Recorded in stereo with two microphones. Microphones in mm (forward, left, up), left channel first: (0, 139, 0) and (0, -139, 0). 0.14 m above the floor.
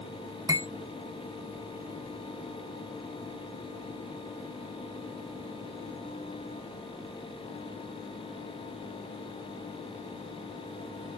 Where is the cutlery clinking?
10° right (ahead or behind), 0.6 m.